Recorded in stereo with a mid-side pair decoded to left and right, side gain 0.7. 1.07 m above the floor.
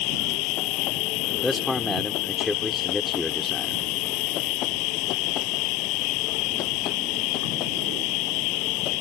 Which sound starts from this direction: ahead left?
An insect, at 0.0 s.